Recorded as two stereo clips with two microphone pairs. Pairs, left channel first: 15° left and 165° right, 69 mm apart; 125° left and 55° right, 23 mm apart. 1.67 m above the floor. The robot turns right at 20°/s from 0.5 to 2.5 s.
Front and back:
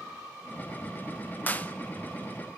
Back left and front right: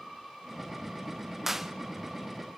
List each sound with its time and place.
1.5 s a clap: 5° left, 0.9 m; by 1.7 s 10° left, 0.9 m